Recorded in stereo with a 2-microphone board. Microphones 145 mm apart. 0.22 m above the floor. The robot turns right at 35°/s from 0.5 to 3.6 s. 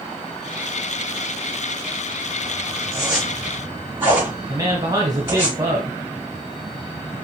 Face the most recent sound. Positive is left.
turn(degrees=-25)  # may be behind; listen again after turning